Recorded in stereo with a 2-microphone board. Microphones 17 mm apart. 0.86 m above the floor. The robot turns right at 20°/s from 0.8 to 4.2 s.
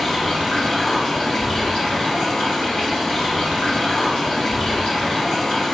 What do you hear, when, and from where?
0.0 s running water: 50° left, 1.3 m; by 5.7 s 120° left, 1.3 m